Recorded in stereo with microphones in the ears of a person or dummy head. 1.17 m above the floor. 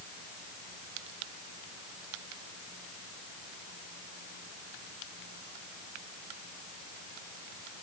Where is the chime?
I don't hear a chime.